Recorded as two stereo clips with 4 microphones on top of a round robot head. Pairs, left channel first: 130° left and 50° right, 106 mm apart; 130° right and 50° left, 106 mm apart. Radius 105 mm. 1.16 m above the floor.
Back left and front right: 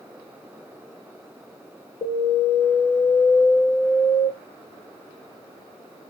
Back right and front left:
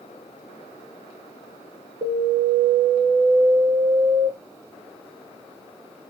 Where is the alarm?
95° left, 0.7 m.